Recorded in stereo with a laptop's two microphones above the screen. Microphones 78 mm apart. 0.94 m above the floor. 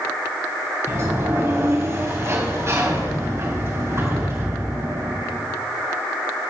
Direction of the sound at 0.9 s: 35° right (ahead or behind).